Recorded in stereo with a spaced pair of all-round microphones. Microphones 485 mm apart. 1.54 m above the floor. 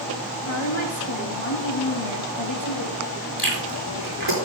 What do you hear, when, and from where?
0.5 s a woman speaking: 70° left (ahead or behind), 2 m
3.4 s chewing: 50° right (ahead or behind), 4.5 m